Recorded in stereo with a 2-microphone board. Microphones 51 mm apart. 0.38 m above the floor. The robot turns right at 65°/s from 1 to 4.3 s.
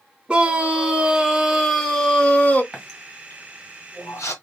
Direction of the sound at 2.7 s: Centre (ahead or behind).